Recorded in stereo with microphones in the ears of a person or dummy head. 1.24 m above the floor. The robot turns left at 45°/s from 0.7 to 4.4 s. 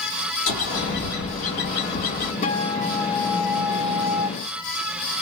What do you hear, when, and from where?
0.5 s a bird: 115° left, 1.4 m; by 2.3 s 40° left, 1.4 m
2.4 s a guitar: 40° left, 1.0 m; by 4.3 s 40° right, 1.0 m